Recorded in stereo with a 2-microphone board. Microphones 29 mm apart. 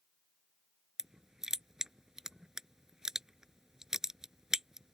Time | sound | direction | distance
1.0 | crushing | 20° right (ahead or behind) | ?